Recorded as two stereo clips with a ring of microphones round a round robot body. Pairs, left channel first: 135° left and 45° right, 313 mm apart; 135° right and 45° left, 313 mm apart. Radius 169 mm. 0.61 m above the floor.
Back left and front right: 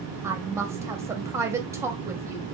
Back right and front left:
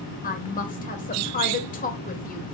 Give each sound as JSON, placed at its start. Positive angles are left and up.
{"t": 0.2, "sound": "a woman speaking", "azimuth_deg": -115, "distance_m": 0.9}